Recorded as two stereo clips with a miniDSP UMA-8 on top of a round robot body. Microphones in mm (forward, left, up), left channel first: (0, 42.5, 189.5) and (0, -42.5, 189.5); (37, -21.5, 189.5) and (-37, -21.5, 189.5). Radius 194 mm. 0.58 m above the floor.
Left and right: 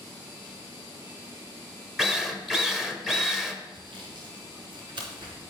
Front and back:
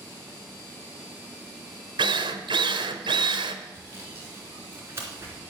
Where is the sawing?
125° right, 3 m.